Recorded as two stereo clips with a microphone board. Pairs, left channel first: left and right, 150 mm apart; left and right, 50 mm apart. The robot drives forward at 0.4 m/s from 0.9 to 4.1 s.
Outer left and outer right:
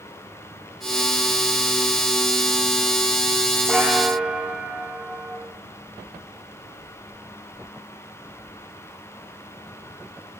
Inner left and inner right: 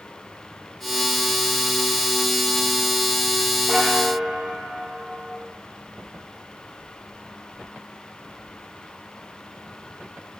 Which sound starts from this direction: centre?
A bell, at 3.7 s.